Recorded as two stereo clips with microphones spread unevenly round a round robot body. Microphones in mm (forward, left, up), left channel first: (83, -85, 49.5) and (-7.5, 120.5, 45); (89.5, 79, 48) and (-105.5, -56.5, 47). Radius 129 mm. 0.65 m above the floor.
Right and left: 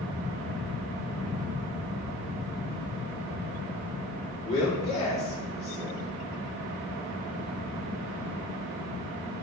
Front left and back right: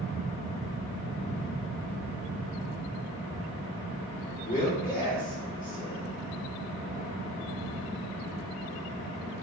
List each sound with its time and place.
4.5 s a man speaking: 10° right, 1.6 m